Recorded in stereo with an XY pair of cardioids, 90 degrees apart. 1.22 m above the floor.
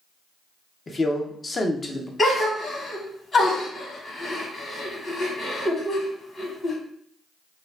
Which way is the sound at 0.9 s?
35° left.